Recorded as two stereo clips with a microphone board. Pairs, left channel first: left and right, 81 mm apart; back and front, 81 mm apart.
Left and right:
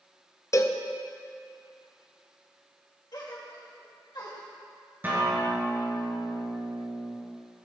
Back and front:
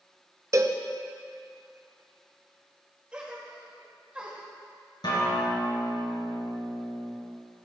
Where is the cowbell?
45° left, 0.6 m.